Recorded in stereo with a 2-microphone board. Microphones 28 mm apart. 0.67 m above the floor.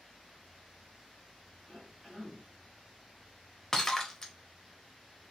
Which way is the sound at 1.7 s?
5° left (ahead or behind).